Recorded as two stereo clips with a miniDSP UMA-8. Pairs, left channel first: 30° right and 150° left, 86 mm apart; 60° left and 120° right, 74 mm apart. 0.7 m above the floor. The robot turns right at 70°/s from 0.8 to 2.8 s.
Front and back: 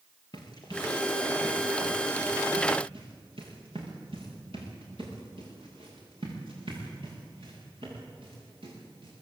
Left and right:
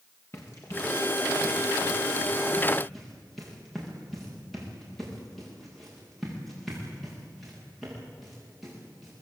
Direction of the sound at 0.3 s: 5° left.